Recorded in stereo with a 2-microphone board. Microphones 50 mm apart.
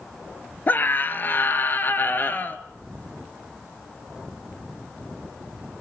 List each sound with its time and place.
0.7 s a scream: 40° left (ahead or behind), 1.7 m